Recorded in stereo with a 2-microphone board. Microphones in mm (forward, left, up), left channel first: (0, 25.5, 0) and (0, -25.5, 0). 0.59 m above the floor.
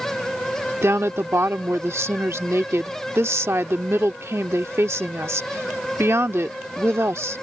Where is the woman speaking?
60° right (ahead or behind).